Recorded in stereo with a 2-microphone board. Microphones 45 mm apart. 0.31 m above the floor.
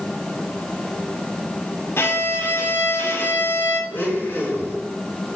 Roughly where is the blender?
Left.